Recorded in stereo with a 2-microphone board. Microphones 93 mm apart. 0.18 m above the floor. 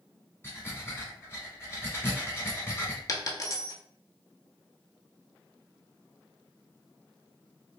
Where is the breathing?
25° left (ahead or behind), 1.3 m.